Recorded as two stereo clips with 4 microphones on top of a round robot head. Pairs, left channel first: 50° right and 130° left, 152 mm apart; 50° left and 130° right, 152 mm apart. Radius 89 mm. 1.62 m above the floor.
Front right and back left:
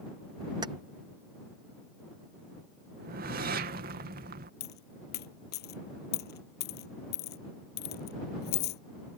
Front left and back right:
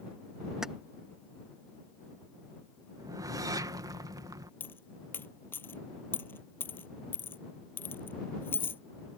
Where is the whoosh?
160° left.